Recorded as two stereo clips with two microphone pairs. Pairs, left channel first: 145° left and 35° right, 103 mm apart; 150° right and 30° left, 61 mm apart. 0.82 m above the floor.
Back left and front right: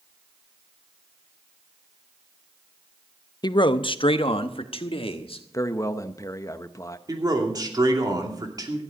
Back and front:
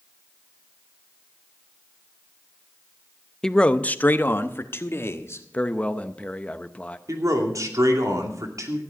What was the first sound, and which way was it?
A man speaking, 135° left.